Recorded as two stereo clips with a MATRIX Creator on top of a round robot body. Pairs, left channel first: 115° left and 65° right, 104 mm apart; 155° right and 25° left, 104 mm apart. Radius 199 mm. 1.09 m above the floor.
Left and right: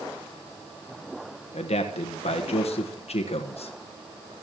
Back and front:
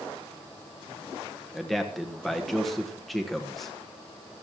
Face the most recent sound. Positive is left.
turn(degrees=115)